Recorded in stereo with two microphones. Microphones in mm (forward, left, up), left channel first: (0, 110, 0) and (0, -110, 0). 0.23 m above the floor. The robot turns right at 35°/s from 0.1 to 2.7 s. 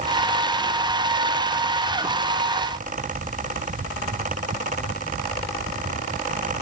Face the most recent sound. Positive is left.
No sound to turn to.